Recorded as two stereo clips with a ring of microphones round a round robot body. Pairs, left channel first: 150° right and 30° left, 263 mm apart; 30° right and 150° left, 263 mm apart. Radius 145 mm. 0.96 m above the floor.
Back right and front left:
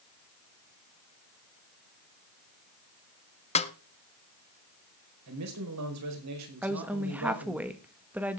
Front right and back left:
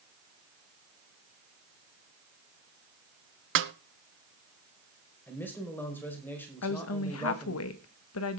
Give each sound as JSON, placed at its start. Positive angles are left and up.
{"t": 3.5, "sound": "a snare drum", "azimuth_deg": 155, "distance_m": 1.0}
{"t": 5.3, "sound": "a man speaking", "azimuth_deg": 55, "distance_m": 5.0}
{"t": 6.6, "sound": "a woman speaking", "azimuth_deg": -55, "distance_m": 1.6}